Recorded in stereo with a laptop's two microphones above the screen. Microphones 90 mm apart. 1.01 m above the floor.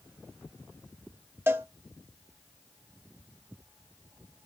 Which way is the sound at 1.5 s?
25° right (ahead or behind).